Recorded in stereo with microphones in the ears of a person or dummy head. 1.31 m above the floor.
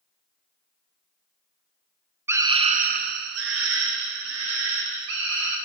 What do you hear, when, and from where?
2.3 s a scream: 10° right (ahead or behind), 0.8 m; by 5.6 s 85° right, 3 m